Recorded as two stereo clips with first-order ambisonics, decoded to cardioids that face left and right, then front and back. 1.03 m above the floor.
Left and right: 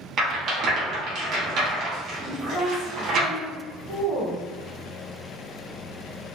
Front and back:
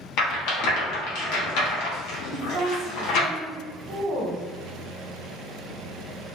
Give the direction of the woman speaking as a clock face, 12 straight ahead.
7 o'clock.